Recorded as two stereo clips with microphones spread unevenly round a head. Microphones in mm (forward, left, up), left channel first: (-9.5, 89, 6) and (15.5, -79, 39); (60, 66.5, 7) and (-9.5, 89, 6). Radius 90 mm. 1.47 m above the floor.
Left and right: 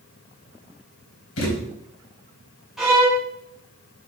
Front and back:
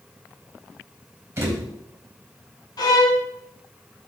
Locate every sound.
1.4 s a thud: 105° left, 4 m
2.8 s a violin: 5° left, 3 m